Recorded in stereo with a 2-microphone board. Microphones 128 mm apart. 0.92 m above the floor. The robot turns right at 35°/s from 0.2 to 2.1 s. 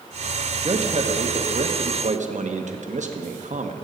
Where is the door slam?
No door slam in this recording.